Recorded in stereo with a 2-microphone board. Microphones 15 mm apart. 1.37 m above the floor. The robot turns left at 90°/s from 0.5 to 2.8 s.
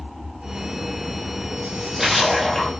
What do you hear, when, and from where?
1.6 s a splash: 120° right, 0.9 m; by 2.7 s 145° left, 0.9 m